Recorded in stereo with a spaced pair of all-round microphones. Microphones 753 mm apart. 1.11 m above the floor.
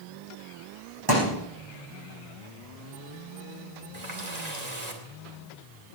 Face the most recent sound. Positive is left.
turn(degrees=-55)  # may be behind; listen again after turning